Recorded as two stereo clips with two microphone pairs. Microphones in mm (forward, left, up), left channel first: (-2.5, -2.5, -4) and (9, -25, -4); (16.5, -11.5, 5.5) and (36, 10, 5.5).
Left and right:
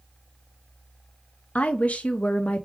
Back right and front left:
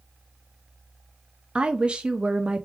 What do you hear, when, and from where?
1.6 s a woman speaking: 100° left, 0.6 m